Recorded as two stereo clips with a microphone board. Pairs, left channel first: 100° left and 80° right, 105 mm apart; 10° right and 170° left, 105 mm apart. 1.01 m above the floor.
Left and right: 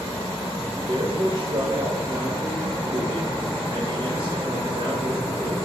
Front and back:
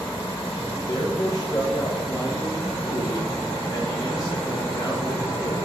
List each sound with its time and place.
0.7 s a man speaking: 55° right, 1.3 m